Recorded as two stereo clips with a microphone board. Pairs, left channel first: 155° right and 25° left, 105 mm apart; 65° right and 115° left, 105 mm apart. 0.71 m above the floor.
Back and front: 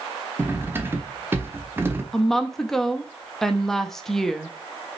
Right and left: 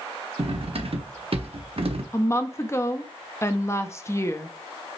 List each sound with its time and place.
0.4 s cutlery clinking: 90° left, 0.7 m
2.1 s a woman speaking: 75° right, 0.6 m